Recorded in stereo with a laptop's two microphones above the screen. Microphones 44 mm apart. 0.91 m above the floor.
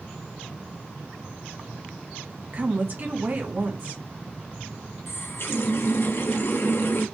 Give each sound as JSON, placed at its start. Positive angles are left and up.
{"t": 2.5, "sound": "a woman speaking", "side_deg": -45, "distance_m": 1.2}
{"t": 5.1, "sound": "a running tap", "side_deg": 60, "distance_m": 0.7}